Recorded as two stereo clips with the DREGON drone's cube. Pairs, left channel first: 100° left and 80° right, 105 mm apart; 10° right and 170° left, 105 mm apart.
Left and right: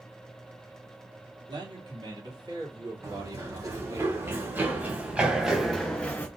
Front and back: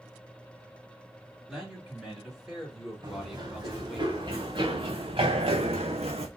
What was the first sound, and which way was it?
A man speaking, 105° right.